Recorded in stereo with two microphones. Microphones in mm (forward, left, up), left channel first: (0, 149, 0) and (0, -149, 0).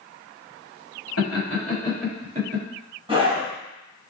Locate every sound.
1.2 s laughter: 50° left (ahead or behind), 1.5 m; by 2.6 s 40° right (ahead or behind), 1.3 m
3.1 s a scream: 15° right (ahead or behind), 1.0 m